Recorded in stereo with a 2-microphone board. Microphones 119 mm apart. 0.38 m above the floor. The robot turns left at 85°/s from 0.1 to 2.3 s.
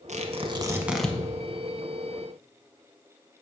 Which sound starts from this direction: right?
Tearing paper, at 0.1 s.